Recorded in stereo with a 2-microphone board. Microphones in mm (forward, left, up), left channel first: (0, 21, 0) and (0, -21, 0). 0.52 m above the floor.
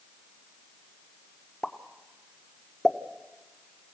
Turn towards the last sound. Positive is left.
turn(degrees=10)  # may be behind; listen again after turning